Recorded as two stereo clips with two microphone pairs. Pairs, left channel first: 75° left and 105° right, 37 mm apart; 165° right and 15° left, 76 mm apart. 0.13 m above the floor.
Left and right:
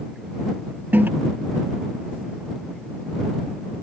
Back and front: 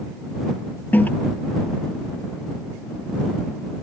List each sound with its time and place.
0.9 s a toilet flushing: 105° right